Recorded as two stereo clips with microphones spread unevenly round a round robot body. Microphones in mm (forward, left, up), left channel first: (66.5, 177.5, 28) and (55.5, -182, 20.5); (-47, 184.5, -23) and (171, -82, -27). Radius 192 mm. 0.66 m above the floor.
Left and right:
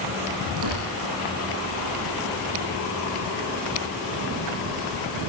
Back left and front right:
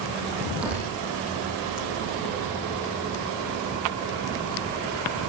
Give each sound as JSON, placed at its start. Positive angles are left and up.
{"t": 0.6, "sound": "tearing paper", "azimuth_deg": -140, "distance_m": 10.0}